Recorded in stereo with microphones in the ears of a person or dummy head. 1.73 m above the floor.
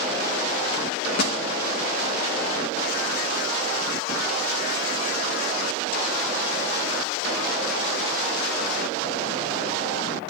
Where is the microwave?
55° left (ahead or behind), 2.5 m.